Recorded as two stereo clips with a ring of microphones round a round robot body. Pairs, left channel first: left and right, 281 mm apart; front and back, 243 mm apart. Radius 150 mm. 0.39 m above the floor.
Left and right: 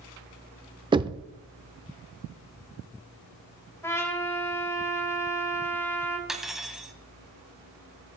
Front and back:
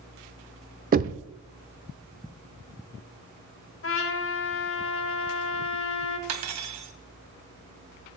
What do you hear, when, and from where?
0.9 s knocking: 155° right, 0.6 m
3.8 s a trumpet: 10° left, 2 m
6.3 s cutlery clinking: straight behind, 1.5 m